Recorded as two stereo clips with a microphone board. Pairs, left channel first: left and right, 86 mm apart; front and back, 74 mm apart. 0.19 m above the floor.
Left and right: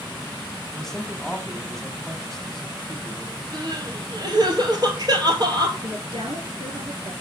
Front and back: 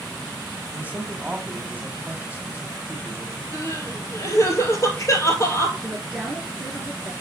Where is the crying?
50° right, 2 m.